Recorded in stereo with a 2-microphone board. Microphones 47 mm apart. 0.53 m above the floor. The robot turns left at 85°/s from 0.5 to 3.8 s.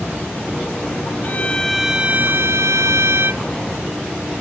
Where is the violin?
40° left; by 3.4 s 145° right.